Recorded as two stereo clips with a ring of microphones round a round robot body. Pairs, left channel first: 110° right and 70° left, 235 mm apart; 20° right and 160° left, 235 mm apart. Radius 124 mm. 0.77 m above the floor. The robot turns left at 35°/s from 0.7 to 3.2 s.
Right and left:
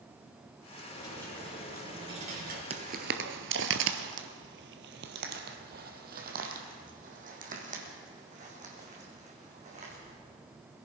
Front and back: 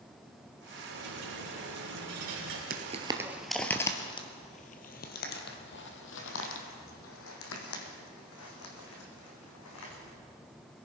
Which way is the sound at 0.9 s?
Straight behind.